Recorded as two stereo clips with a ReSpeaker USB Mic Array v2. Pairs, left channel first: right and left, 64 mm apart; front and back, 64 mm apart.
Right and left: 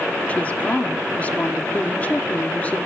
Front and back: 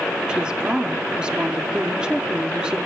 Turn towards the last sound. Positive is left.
turn(degrees=-125)